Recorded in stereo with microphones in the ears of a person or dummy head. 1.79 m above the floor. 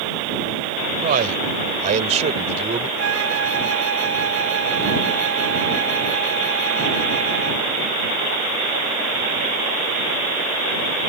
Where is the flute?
70° right (ahead or behind).